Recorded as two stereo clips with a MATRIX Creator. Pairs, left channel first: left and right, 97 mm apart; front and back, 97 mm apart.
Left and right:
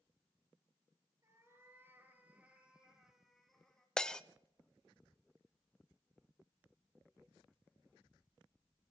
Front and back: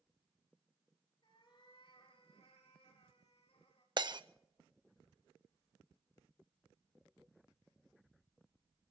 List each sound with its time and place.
1.2 s a cat meowing: 30° right, 4 m; by 3.9 s 5° left, 4 m
4.0 s breaking glass: 170° left, 0.7 m